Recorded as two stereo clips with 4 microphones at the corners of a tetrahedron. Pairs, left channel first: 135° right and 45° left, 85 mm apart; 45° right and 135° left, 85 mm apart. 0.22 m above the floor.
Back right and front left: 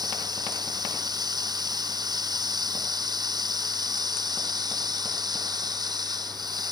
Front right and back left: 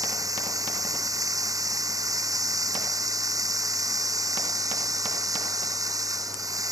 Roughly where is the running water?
Left.